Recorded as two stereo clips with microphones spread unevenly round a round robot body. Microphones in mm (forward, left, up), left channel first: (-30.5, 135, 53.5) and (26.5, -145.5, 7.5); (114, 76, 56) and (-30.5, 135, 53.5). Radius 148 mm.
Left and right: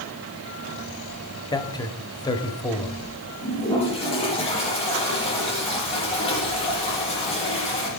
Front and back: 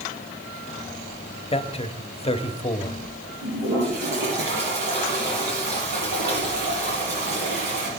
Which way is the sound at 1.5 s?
20° left.